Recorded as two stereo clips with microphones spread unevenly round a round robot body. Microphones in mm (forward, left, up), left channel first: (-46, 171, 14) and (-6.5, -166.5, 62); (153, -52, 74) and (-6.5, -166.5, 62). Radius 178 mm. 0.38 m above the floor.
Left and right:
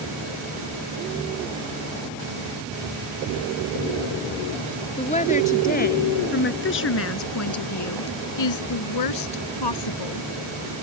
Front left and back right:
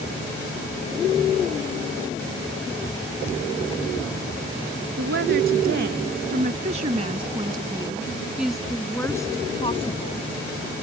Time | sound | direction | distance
5.0 | a woman speaking | 170° left | ?